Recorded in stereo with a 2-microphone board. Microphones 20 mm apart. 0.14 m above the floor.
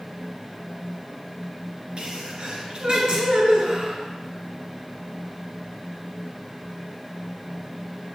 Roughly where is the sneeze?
Right.